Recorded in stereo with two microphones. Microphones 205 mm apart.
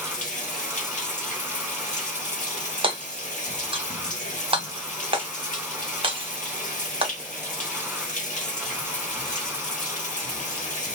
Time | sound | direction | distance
0.0 | running water | 40° left (ahead or behind) | 1.4 m
2.8 | hammering | 25° right (ahead or behind) | 1.0 m